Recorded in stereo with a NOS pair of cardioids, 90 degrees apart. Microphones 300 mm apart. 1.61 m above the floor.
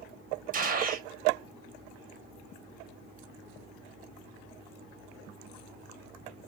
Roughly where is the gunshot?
Ahead right.